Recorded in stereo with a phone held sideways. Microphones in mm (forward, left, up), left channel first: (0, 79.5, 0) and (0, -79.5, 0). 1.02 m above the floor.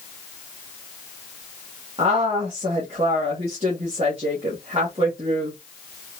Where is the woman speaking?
40° right (ahead or behind), 1.5 m.